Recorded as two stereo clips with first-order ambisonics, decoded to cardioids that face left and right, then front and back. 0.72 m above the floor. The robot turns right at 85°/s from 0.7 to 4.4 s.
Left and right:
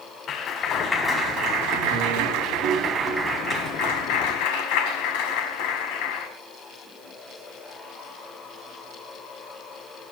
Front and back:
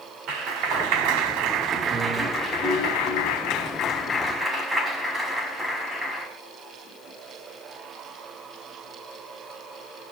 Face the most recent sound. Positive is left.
turn(degrees=100)